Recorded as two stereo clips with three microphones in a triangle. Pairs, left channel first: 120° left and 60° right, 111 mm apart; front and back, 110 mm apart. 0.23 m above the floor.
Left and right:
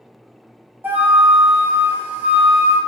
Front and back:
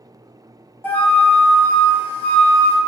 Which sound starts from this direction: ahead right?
A flute, at 0.8 s.